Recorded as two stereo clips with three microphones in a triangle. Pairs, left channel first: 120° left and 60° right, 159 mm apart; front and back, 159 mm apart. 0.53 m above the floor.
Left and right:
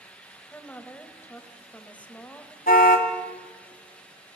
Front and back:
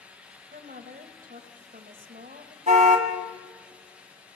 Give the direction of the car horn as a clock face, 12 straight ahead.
7 o'clock.